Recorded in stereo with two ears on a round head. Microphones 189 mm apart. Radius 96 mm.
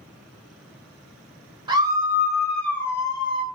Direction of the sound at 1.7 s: 20° right (ahead or behind).